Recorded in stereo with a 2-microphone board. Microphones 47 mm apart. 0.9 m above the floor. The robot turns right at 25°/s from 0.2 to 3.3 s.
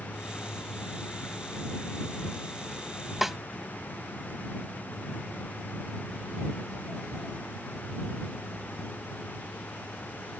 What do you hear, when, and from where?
3.2 s a snare drum: 5° right (ahead or behind)